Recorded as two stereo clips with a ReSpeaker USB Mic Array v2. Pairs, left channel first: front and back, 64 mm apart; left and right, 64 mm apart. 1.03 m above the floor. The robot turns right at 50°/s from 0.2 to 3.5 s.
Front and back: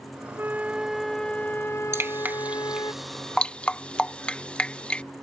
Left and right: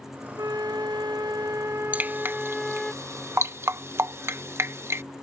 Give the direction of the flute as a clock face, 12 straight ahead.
4 o'clock.